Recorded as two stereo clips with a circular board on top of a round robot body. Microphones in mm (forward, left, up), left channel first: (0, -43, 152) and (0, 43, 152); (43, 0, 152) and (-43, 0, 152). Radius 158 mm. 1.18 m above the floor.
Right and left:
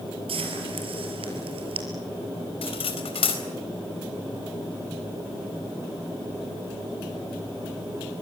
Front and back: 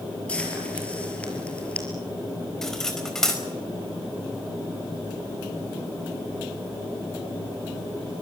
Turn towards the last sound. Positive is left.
turn(degrees=-85)